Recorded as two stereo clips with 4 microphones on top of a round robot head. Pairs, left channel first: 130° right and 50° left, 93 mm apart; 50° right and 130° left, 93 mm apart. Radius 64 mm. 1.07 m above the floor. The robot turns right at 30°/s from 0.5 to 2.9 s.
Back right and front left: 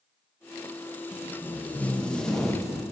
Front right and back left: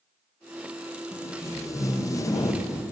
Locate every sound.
1.1 s tape being pulled: 85° right, 0.7 m; by 2.9 s 30° right, 0.7 m